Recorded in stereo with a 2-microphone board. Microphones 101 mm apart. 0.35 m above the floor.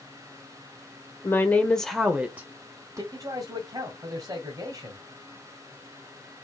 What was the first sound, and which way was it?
A woman speaking, 25° left (ahead or behind).